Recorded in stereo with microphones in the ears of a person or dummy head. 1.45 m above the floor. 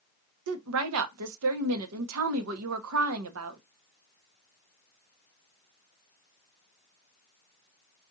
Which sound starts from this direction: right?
A woman speaking, at 0.5 s.